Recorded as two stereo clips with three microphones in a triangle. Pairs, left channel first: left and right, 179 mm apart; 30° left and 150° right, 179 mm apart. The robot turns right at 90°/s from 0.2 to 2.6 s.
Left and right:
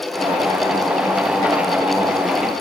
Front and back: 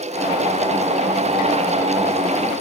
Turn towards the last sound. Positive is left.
No sound to turn to.